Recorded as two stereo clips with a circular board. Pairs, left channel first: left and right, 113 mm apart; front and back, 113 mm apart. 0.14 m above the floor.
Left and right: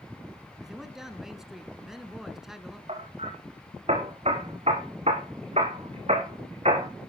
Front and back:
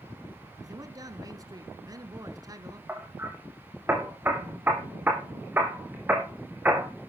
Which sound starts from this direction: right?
Hammering, at 2.9 s.